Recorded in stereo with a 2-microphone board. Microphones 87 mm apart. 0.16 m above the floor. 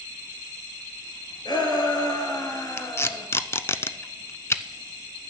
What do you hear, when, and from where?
1.4 s a shout: 55° left (ahead or behind), 3.5 m; by 3.3 s 30° left (ahead or behind), 2 m
2.8 s tape being pulled: 30° left (ahead or behind), 0.5 m